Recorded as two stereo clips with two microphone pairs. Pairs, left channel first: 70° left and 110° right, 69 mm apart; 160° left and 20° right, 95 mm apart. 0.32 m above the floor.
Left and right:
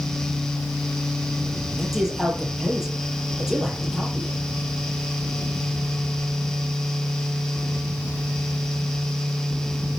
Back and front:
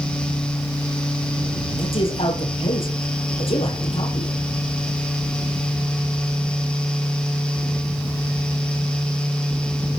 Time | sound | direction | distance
1.8 | a man speaking | 170° left | 8 m